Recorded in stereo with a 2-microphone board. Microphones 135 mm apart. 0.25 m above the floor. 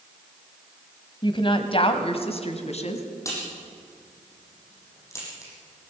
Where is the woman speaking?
35° left (ahead or behind), 1.7 m; by 3.0 s 55° left (ahead or behind), 2.5 m.